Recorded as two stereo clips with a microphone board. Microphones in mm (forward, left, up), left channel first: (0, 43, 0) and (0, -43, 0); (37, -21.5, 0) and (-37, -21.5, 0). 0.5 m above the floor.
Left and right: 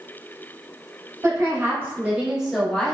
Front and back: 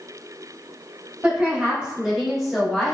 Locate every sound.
1.2 s a woman speaking: 115° right, 1.1 m; by 3.0 s 65° left, 0.8 m